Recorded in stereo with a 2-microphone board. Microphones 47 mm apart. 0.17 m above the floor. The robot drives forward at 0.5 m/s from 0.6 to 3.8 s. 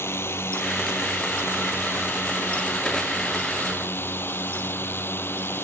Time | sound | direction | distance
0.0 | a drone | 60° left (ahead or behind) | ?